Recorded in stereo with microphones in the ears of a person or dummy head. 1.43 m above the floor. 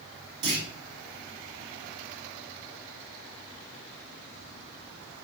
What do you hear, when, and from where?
0.4 s a clunk: 50° right (ahead or behind), 1.4 m